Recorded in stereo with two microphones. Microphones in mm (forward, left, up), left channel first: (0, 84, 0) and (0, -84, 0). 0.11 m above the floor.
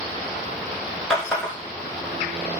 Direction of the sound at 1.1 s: 5° left (ahead or behind).